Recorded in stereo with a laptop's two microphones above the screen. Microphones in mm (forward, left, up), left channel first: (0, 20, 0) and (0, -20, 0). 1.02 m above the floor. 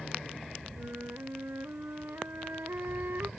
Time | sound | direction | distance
0.8 | a flute | 65° right (ahead or behind) | ?